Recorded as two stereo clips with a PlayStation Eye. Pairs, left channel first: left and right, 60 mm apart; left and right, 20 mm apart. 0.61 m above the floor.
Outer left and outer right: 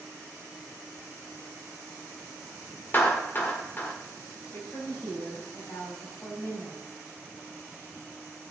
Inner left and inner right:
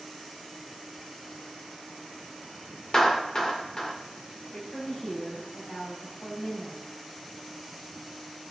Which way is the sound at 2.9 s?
35° left (ahead or behind).